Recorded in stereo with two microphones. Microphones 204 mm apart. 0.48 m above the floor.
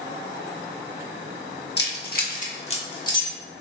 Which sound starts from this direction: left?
Keys jangling, at 1.8 s.